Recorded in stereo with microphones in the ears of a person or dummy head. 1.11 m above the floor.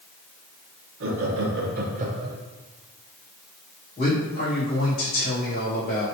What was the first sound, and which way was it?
Laughter, 65° right (ahead or behind).